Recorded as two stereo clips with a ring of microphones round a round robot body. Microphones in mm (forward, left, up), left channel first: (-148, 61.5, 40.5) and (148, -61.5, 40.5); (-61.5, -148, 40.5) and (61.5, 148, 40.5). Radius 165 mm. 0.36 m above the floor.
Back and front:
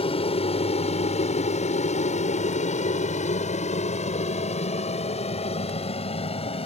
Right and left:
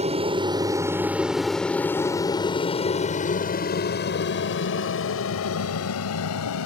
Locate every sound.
0.0 s an aircraft: 110° left; by 6.7 s 135° right